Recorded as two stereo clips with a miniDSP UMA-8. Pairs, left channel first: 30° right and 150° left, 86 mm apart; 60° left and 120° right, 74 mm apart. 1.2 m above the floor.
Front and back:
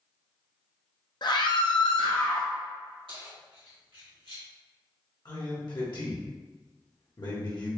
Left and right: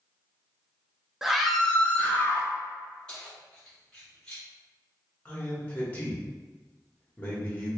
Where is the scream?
40° right, 0.6 m; by 2.5 s 5° left, 1.0 m.